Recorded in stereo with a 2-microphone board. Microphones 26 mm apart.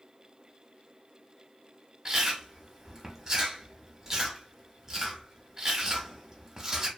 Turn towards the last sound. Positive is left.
turn(degrees=-20)  # may be behind; listen again after turning